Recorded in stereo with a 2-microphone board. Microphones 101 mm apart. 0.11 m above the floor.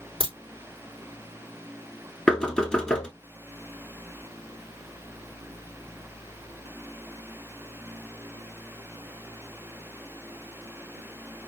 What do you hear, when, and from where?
0.2 s a crack: 65° right (ahead or behind), 3 m
2.3 s knocking: 10° left (ahead or behind), 0.8 m